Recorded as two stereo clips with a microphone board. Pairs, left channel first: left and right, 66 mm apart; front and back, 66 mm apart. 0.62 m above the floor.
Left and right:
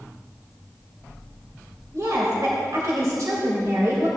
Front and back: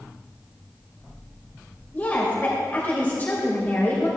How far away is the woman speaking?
About 2.5 m.